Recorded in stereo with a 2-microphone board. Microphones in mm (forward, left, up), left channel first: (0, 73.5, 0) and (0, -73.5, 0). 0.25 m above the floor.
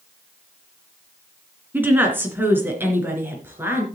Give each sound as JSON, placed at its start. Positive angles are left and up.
{"t": 1.7, "sound": "a woman speaking", "side_deg": -10, "distance_m": 3.0}